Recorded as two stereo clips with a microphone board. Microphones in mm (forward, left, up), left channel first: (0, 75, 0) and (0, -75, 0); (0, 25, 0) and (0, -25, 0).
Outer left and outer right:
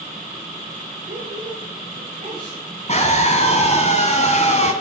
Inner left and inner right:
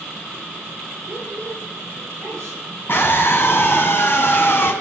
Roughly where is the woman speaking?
Right.